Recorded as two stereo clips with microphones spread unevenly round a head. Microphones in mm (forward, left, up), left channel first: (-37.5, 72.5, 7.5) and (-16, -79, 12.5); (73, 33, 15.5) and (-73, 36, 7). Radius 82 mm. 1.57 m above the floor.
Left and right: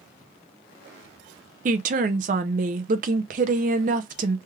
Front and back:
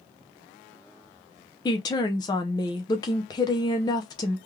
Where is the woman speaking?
60° right, 0.6 m.